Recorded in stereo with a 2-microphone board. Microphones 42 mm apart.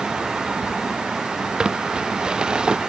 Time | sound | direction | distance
1.6 | crumpling | 20° right (ahead or behind) | ?